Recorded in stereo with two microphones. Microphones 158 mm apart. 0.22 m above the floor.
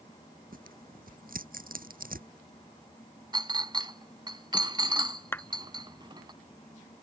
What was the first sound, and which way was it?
Tearing paper, 70° right (ahead or behind).